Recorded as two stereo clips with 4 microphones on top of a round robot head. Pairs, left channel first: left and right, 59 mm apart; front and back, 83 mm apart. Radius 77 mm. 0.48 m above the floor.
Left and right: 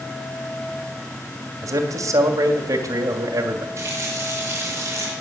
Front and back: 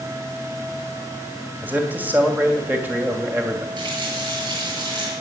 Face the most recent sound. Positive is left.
turn(degrees=-145)